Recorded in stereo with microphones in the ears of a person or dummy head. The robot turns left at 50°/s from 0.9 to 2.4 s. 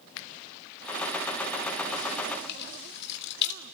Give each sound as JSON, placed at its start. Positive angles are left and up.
{"t": 0.2, "sound": "a finger snap", "side_deg": 75, "distance_m": 0.8}
{"t": 2.5, "sound": "keys jangling", "side_deg": 65, "distance_m": 3.0}